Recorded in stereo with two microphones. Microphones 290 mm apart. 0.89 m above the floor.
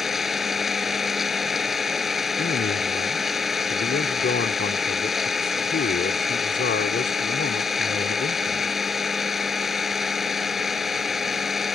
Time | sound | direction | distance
0.0 | an engine running | centre (ahead or behind) | ?
2.4 | a man speaking | 40° left (ahead or behind) | ?